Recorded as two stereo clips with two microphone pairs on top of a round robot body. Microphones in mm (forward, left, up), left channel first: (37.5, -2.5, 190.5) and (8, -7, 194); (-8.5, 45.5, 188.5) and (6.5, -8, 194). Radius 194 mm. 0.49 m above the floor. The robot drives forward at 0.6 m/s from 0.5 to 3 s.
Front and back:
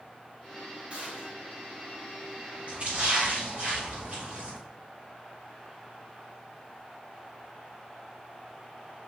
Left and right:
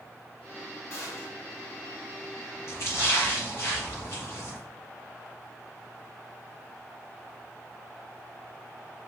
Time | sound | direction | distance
0.9 | a gunshot | 135° left | 4.5 m
2.7 | a splash | 145° left | 5 m